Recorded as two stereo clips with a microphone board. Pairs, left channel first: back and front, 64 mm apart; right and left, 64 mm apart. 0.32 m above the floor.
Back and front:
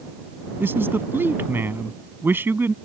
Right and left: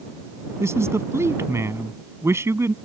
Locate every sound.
0.6 s a man speaking: 50° left